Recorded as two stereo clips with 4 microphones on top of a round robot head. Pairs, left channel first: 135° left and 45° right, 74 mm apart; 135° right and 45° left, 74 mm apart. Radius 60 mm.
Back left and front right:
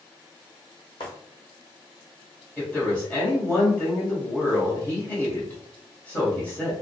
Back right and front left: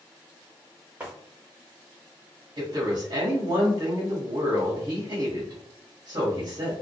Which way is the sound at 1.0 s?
120° left.